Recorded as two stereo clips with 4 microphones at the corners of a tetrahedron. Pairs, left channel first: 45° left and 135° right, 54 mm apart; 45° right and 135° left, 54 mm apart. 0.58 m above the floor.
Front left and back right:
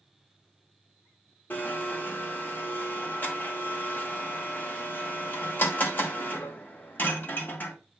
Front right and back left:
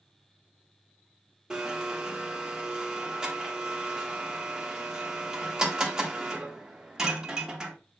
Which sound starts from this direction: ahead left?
A blender, at 1.5 s.